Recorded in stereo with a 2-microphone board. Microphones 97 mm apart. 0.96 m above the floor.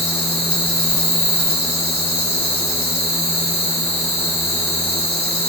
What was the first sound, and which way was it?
An insect, 75° left (ahead or behind).